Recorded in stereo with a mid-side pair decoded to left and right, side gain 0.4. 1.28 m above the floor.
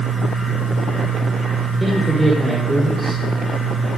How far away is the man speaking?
About 5 m.